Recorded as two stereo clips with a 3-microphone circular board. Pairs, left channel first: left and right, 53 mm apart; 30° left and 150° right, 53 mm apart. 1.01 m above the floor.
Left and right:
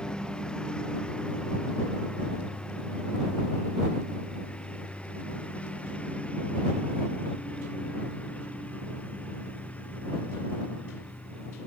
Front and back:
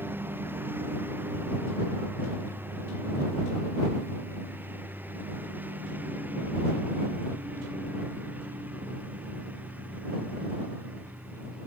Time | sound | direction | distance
0.0 | a lawn mower | 160° left | ?